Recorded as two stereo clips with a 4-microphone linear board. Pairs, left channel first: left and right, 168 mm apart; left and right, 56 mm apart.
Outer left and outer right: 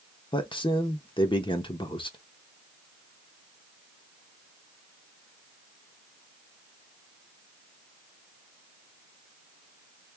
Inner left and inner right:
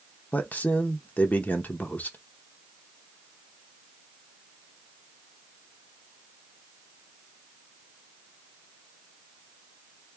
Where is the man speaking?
30° left (ahead or behind), 0.9 m.